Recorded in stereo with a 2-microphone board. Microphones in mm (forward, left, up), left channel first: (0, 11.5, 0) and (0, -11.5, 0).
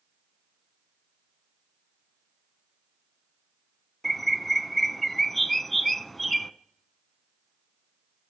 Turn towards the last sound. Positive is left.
turn(degrees=5)  # may be behind; listen again after turning